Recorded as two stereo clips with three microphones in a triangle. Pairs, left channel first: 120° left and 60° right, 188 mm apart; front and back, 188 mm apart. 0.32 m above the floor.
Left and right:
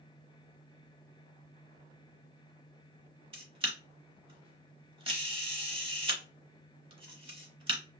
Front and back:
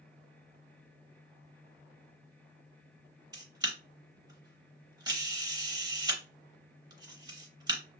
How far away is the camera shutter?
About 0.7 m.